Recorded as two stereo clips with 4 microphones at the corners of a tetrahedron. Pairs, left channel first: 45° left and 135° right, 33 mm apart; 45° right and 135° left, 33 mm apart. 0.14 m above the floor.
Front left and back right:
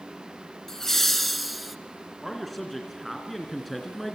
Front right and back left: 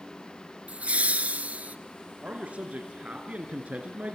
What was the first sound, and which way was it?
Laughter, 115° left.